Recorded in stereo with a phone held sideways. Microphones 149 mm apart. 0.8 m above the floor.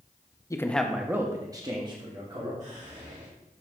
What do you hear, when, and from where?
0.5 s a man speaking: 20° left (ahead or behind), 0.5 m; by 2.5 s 35° right (ahead or behind), 1.7 m
2.6 s whispering: 55° right (ahead or behind), 1.6 m